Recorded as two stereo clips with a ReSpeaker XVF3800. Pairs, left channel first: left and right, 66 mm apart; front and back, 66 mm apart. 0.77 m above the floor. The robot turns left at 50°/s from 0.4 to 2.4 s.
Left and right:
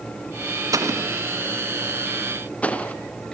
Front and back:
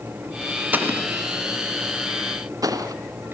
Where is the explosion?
115° right, 2.5 m; by 3.0 s 160° left, 2.5 m.